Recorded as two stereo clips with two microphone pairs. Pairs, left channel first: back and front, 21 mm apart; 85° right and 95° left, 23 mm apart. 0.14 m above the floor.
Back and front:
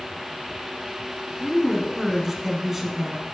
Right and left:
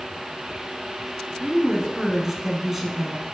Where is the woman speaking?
50° left, 1.2 m.